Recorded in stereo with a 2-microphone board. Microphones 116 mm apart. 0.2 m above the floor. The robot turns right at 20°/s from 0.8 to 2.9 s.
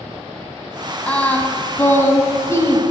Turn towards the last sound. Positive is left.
turn(degrees=60)